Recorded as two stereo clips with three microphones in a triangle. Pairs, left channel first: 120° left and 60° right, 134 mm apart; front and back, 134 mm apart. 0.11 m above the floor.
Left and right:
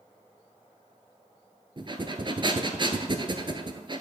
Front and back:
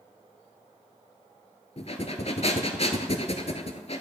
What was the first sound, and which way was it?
Breathing, 15° right.